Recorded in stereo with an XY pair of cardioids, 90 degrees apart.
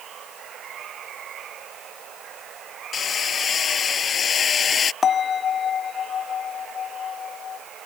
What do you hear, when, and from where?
0.0 s running water: 65° right
2.9 s hammering: 55° left
5.0 s a bell: 45° left